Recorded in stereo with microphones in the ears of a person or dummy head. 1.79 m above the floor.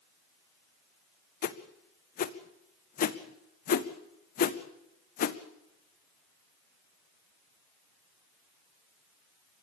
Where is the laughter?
No laughter in this recording.